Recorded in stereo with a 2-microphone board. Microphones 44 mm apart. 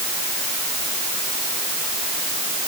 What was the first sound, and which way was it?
Only background noise.